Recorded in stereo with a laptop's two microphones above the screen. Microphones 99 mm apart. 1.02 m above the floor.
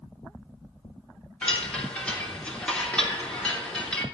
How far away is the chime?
About 3 m.